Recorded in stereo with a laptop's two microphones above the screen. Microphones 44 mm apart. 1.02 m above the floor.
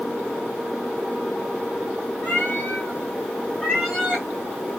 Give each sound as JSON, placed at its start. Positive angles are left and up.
{"t": 2.2, "sound": "a cat meowing", "side_deg": 45, "distance_m": 1.6}